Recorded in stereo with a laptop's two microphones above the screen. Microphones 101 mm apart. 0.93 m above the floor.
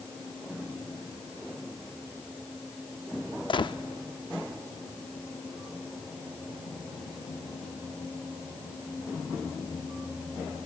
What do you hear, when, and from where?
3.5 s a gunshot: 55° left (ahead or behind), 0.6 m